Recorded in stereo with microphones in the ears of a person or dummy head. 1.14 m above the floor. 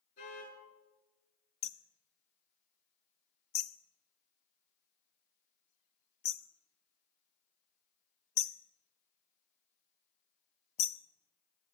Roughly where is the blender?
No blender in this recording.